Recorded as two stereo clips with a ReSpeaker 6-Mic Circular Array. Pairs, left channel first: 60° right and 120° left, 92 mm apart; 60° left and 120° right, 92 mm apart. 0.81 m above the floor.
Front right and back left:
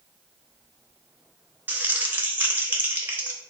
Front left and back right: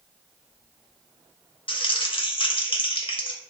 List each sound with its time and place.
1.7 s crumpling: 50° left, 0.6 m